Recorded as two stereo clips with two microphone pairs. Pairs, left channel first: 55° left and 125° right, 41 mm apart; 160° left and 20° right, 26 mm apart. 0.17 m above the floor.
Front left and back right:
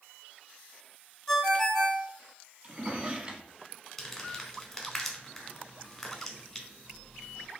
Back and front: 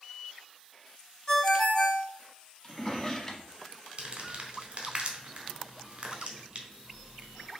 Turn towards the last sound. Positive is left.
turn(degrees=-25)